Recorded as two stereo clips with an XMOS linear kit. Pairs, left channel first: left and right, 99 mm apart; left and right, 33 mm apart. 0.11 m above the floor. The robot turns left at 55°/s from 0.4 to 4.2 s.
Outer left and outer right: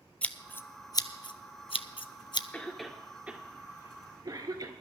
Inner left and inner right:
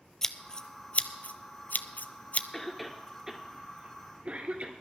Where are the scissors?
15° left (ahead or behind), 0.6 m; by 2.4 s 50° left (ahead or behind), 0.6 m.